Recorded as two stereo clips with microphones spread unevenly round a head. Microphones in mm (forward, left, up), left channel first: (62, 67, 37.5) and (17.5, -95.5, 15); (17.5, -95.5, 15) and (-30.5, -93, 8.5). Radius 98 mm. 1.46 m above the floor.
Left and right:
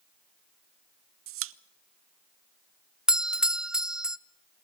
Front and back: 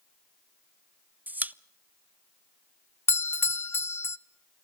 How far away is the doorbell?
About 0.6 m.